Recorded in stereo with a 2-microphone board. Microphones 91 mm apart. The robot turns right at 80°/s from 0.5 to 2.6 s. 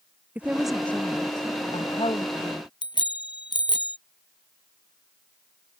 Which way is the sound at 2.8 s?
60° left (ahead or behind).